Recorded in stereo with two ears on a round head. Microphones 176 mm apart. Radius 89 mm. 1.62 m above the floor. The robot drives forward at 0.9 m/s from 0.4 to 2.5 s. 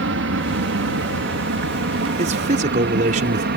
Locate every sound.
0.0 s an aircraft: 70° right (ahead or behind); by 3.6 s 55° right (ahead or behind)
2.2 s a man speaking: 35° right (ahead or behind); by 3.5 s 40° right (ahead or behind)